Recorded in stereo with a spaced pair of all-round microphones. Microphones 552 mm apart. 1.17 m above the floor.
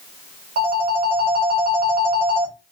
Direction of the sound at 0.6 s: 70° right (ahead or behind).